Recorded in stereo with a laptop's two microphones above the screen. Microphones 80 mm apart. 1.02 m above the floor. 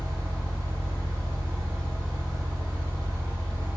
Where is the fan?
35° right (ahead or behind), 1.2 m.